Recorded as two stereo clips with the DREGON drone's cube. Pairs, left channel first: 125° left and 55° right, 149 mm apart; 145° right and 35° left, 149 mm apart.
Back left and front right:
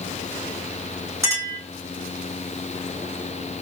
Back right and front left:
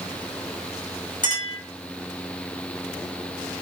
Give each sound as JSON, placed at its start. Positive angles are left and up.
{"t": 1.2, "sound": "a clink", "azimuth_deg": -125, "distance_m": 1.9}